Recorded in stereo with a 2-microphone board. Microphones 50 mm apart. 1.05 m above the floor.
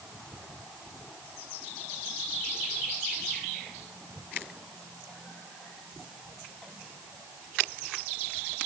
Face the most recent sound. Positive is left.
No sound to turn to.